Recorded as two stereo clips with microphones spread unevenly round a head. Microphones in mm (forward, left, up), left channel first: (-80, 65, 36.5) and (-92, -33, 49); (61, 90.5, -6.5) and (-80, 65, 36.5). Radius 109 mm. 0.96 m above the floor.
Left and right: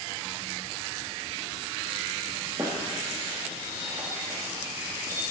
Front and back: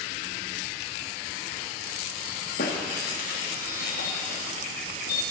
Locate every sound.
2.6 s a squeak: 25° right, 1.1 m